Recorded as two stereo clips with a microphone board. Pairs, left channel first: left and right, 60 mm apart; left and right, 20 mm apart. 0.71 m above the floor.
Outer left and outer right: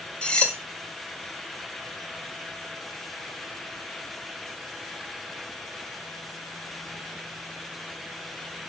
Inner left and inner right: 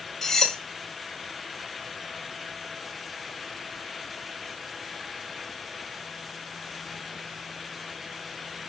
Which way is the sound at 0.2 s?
20° left (ahead or behind).